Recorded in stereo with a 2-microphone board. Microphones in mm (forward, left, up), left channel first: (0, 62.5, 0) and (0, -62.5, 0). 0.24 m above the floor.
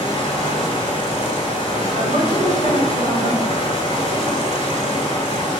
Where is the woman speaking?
50° right (ahead or behind), 2 m.